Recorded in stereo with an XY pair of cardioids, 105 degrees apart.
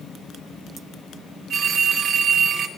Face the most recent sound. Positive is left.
turn(degrees=-65)